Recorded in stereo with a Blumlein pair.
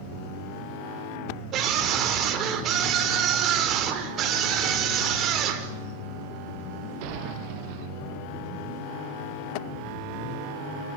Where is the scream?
30° right, 5 m.